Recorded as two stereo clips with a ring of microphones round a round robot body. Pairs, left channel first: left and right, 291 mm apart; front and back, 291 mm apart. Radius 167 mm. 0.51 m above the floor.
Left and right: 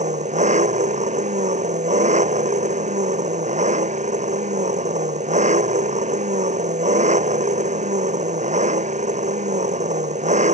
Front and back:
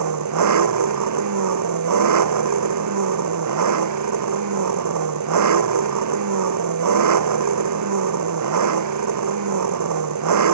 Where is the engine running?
155° right.